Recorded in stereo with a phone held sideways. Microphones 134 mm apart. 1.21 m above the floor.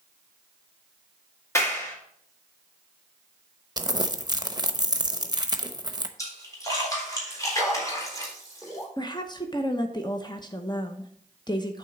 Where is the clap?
20° left (ahead or behind), 1.9 m.